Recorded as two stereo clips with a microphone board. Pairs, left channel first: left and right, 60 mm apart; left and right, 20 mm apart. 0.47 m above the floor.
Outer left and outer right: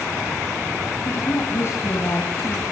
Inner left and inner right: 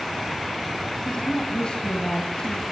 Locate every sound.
1.1 s a woman speaking: 50° left (ahead or behind), 3 m